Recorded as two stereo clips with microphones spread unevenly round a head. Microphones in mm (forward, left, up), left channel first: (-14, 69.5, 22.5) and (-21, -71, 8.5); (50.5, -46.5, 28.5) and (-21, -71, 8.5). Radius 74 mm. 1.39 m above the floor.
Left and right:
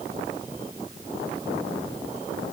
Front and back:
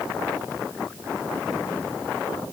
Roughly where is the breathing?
I don't hear breathing.